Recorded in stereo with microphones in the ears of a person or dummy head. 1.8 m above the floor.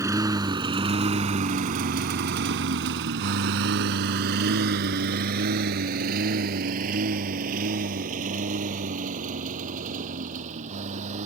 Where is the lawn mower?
10° right (ahead or behind); by 11.3 s 45° right (ahead or behind).